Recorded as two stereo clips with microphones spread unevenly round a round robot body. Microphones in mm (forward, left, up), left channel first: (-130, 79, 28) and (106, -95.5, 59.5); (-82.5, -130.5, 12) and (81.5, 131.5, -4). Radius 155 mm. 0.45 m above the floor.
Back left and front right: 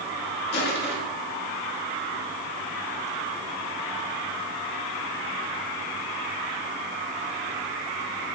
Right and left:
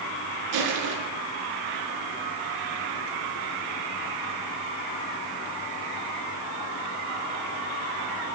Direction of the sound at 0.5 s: 85° left.